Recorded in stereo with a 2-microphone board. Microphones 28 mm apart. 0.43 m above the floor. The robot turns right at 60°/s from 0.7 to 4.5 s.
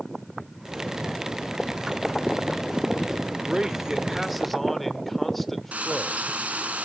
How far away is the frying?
About 1.5 m.